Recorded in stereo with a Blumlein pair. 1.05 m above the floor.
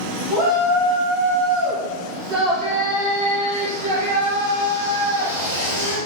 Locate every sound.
0.3 s a shout: 25° right, 3 m; by 6.0 s 65° right, 5.5 m